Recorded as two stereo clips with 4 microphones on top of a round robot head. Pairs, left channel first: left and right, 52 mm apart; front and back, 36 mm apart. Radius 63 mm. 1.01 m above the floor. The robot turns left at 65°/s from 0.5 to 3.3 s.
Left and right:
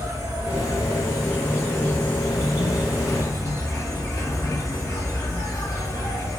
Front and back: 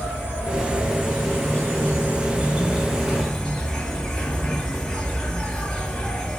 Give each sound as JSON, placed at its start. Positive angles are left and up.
{"t": 0.0, "sound": "an insect", "azimuth_deg": -100, "distance_m": 1.2}